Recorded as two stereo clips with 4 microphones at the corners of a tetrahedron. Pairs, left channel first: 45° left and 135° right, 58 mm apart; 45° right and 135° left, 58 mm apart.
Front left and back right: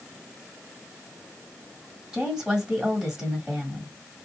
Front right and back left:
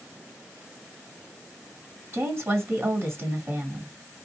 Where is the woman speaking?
150° left, 1.7 m.